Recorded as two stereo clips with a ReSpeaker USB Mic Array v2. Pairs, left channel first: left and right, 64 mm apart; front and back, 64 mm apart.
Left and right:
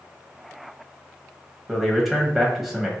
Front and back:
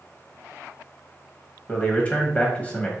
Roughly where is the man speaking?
Ahead.